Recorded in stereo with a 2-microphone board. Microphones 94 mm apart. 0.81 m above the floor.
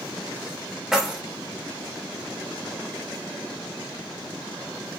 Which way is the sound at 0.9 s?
5° right (ahead or behind).